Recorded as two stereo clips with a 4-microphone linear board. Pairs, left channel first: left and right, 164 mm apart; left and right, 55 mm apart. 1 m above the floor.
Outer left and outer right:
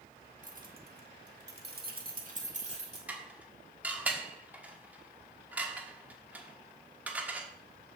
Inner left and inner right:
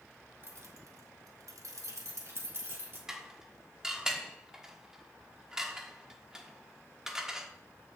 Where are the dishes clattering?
10° right (ahead or behind), 1.2 m.